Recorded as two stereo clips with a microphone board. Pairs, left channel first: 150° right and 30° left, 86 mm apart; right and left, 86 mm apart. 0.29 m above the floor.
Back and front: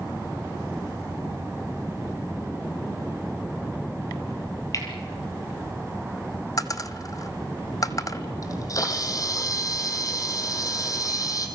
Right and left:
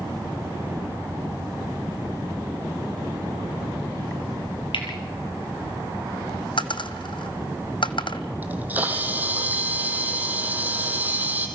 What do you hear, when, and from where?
4.7 s cutlery clinking: 100° right, 4 m
6.6 s a dropped coin: 105° right, 1.0 m
8.4 s a camera shutter: 160° left, 3 m